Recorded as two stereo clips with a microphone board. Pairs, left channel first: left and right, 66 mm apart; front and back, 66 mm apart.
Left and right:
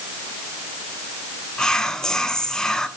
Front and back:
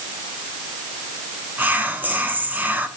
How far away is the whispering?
About 1.2 m.